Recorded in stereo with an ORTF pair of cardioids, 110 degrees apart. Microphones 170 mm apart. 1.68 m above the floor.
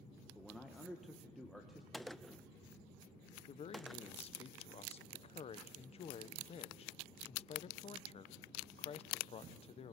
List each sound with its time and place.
0.3 s a man speaking: straight ahead, 1.7 m
1.9 s a gunshot: straight ahead, 0.6 m
3.5 s a man speaking: 35° left, 1.1 m